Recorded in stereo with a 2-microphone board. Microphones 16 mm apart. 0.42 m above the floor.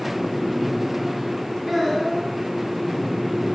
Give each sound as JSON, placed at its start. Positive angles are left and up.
{"t": 1.7, "sound": "a child speaking", "side_deg": -20, "distance_m": 5.0}